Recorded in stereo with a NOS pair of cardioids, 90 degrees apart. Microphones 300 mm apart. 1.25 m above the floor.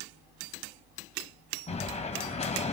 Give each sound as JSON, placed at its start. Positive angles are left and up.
{"t": 1.7, "sound": "an explosion", "azimuth_deg": 20, "distance_m": 3.0}